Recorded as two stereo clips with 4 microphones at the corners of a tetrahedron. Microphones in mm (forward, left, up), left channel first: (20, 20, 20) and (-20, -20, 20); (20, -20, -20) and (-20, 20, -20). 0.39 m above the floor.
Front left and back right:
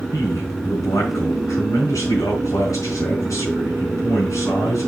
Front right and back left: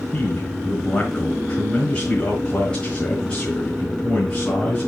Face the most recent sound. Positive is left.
turn(degrees=30)